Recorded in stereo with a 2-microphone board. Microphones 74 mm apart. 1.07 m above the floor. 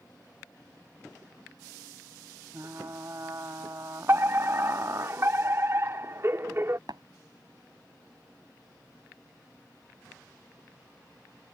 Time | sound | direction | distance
2.5 | frying | 45° right (ahead or behind) | ?
4.1 | a fire alarm | 35° right (ahead or behind) | ?
6.9 | tapping | 75° right (ahead or behind) | ?